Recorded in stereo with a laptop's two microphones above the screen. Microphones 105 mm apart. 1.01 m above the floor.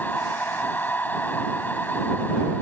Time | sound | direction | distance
0.0 | a machine running | 15° left (ahead or behind) | ?